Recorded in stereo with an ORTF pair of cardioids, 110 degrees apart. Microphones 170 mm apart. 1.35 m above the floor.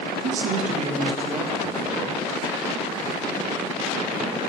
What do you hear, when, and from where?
0.2 s a man speaking: 60° right, 1.0 m; by 2.2 s 20° right, 2.5 m